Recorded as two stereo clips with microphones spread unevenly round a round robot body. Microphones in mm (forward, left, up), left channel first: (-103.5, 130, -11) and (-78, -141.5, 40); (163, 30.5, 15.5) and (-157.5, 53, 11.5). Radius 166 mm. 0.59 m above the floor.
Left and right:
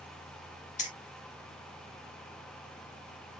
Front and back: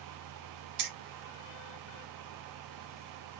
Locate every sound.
0.8 s keys jangling: 150° left, 1.3 m